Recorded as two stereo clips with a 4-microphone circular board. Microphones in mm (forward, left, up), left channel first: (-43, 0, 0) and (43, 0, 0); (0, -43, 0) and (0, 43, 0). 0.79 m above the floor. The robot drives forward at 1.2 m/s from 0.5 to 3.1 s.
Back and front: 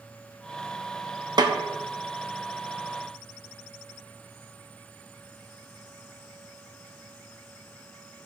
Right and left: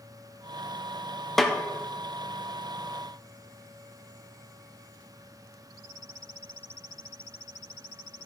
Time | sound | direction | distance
1.4 | a snare drum | 5° right | 1.0 m